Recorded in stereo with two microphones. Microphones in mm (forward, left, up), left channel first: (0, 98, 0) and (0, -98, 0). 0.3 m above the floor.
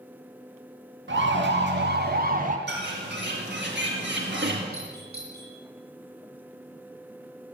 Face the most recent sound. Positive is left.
turn(degrees=50)  # may be behind; listen again after turning